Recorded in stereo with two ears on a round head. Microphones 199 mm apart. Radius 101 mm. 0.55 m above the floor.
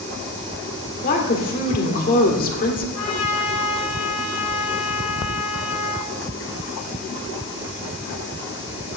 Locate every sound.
1.0 s a woman speaking: 40° left (ahead or behind), 1.8 m
3.0 s a trumpet: 85° left, 3 m